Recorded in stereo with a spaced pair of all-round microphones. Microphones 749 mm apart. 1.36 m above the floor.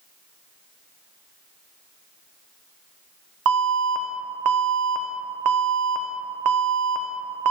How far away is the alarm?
About 0.6 m.